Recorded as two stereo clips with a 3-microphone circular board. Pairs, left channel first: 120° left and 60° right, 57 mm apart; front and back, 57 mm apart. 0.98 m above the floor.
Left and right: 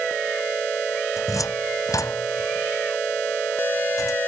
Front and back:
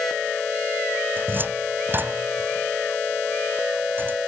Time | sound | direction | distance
1.2 | a cupboard door | 125° left | ?